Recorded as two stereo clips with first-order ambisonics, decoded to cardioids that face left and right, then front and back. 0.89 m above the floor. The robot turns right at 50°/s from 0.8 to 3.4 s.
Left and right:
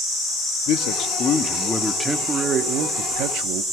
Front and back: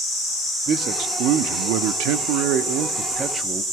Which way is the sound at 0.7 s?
125° left.